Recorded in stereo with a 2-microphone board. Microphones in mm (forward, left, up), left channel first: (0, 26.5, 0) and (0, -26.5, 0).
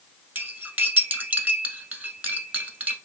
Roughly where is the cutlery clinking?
Right.